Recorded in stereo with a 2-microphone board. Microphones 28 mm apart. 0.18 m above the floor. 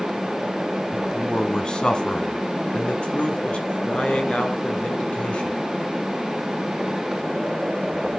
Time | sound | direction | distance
0.9 | a man speaking | 20° left (ahead or behind) | 1.5 m